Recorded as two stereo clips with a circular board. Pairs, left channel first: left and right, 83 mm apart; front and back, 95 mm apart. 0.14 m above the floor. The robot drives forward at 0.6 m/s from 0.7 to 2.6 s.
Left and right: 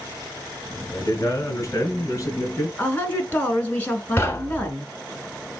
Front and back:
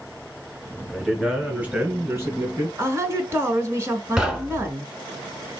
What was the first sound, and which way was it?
A man speaking, 95° left.